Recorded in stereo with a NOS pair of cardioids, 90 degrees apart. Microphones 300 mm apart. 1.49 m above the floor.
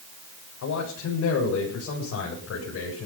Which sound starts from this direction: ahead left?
A man speaking, at 0.6 s.